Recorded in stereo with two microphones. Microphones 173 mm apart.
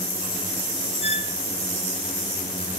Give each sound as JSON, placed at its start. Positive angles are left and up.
{"t": 1.0, "sound": "a squeak", "side_deg": 35, "distance_m": 0.9}